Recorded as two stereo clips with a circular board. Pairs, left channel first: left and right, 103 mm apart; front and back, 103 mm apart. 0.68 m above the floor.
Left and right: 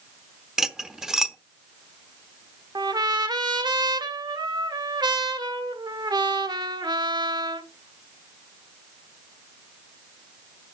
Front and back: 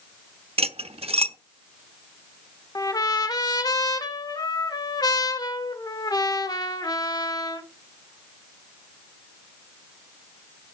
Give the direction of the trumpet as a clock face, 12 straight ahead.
2 o'clock.